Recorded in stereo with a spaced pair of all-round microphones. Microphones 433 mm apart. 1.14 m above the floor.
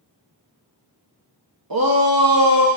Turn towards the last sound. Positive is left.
turn(degrees=-55)  # may be behind; listen again after turning